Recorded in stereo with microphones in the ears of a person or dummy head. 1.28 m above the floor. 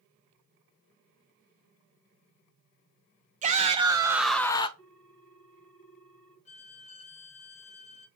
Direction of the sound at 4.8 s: 70° left (ahead or behind).